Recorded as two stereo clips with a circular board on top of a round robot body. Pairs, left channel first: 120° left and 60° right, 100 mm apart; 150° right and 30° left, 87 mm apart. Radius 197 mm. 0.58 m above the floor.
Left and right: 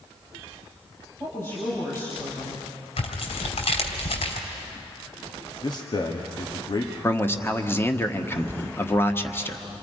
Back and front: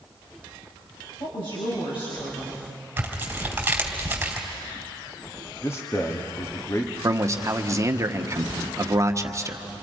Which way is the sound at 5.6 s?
155° left.